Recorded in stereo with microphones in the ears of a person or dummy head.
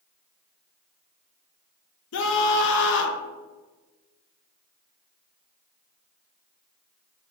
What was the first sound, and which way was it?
A scream, 55° left (ahead or behind).